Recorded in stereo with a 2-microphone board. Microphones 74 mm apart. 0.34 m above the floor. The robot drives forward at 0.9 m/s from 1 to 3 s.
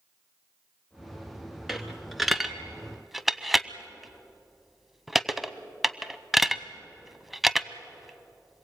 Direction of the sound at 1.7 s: Centre (ahead or behind).